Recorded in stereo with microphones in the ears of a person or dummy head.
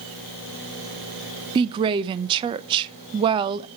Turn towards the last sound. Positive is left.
turn(degrees=-30)  # may be behind; listen again after turning